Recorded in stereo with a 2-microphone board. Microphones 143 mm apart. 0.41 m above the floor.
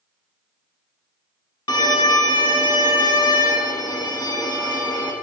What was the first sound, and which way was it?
A violin, 30° left (ahead or behind).